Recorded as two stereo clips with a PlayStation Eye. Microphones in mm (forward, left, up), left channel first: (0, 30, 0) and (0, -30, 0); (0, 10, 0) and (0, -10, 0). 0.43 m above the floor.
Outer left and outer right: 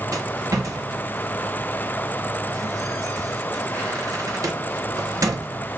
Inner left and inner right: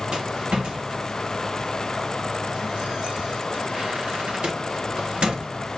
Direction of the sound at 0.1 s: 70° right (ahead or behind).